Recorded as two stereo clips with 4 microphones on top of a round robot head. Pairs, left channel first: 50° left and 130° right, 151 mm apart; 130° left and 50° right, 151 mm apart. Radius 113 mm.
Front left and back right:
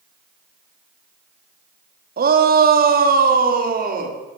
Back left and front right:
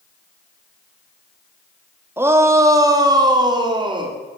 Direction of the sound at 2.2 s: 125° right.